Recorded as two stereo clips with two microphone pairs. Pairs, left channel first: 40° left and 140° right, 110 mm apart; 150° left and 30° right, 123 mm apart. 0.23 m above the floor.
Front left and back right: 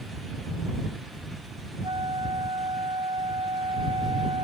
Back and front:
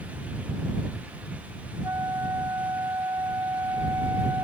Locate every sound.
1.8 s a flute: 95° right